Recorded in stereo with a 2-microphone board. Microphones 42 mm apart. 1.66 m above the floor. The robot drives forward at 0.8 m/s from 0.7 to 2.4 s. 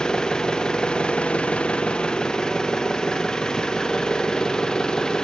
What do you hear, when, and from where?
0.0 s an engine running: 20° left (ahead or behind), 0.9 m; by 5.2 s 15° left (ahead or behind), 1.1 m